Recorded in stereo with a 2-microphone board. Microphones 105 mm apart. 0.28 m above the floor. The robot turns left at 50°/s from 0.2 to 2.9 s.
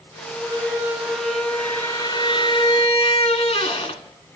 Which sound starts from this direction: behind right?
A squeak, at 0.4 s.